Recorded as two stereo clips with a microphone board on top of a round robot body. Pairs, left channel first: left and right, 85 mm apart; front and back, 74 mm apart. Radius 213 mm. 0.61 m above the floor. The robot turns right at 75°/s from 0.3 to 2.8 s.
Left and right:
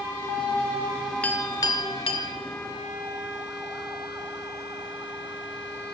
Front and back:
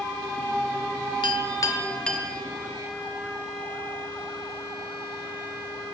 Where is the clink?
15° left, 1.2 m; by 2.3 s 100° left, 1.2 m.